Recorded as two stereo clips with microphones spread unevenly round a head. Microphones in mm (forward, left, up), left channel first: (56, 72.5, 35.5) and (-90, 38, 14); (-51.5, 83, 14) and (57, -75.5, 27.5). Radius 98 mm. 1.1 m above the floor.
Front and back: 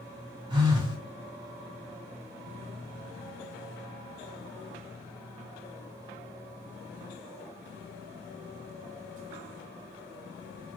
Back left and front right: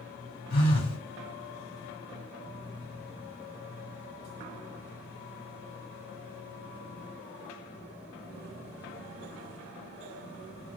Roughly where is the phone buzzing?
Behind left.